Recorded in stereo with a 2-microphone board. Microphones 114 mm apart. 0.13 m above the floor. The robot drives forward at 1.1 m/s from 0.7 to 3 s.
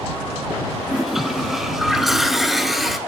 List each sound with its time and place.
0.9 s a toilet flushing: centre (ahead or behind), 1.2 m